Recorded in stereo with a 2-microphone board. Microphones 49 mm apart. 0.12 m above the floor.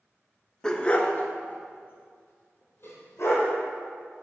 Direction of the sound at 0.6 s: 15° left (ahead or behind).